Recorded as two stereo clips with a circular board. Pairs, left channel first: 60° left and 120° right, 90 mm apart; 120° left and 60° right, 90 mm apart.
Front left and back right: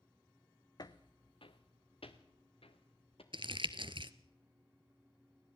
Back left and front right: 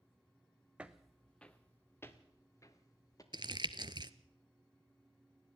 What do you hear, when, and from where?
0.8 s footsteps: 15° left, 1.0 m; by 3.2 s 70° left, 2.5 m
3.3 s crumpling: 100° right, 0.8 m